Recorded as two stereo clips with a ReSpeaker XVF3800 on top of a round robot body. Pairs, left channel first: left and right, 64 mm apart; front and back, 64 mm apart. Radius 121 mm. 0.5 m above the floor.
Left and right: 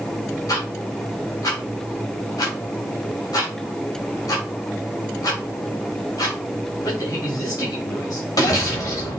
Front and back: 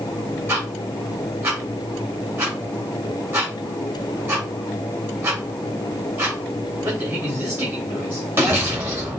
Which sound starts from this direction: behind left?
Ticking, at 0.5 s.